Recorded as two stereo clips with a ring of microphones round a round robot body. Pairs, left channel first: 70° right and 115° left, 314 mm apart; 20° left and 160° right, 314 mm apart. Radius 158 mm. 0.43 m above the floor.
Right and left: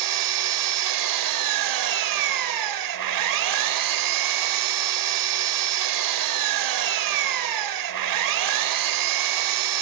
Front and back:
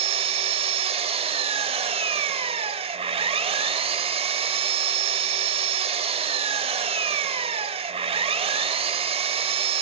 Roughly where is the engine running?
Behind left.